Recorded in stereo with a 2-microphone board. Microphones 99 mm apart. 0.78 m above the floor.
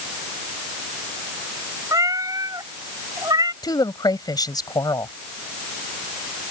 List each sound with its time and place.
1.9 s a cat meowing: 35° right (ahead or behind); by 3.5 s 40° right (ahead or behind)
3.6 s a woman speaking: 45° left (ahead or behind)